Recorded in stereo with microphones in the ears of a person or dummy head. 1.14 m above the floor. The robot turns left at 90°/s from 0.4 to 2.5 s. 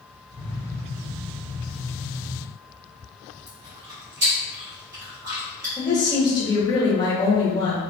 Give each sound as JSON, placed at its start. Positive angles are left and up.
{"t": 3.5, "sound": "chewing", "side_deg": -55, "distance_m": 0.8}
{"t": 5.8, "sound": "a woman speaking", "side_deg": 25, "distance_m": 0.9}